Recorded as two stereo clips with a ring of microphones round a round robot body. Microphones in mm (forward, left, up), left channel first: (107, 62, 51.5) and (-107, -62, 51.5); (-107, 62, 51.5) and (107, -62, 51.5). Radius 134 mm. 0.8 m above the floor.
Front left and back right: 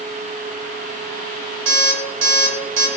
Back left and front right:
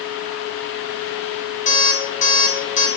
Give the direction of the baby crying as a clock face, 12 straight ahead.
I don't hear a baby crying.